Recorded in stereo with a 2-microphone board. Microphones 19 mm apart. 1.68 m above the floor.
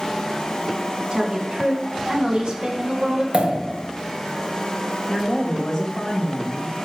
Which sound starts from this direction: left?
A woman speaking, at 5.1 s.